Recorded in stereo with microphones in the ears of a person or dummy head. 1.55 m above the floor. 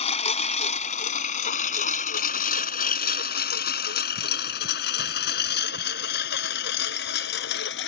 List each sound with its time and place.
0.0 s a lawn mower: 40° left (ahead or behind); by 7.9 s 70° left (ahead or behind)